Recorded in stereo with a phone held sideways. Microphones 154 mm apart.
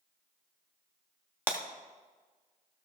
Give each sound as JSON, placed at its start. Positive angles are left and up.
{"t": 1.5, "sound": "breaking glass", "side_deg": -15, "distance_m": 1.1}